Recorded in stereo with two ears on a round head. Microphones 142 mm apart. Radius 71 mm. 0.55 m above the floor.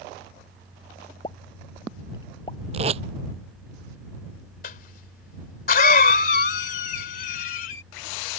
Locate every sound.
1.2 s a pop: 30° left (ahead or behind)
2.7 s tape being pulled: 40° right (ahead or behind)
4.6 s a cough: 60° left (ahead or behind)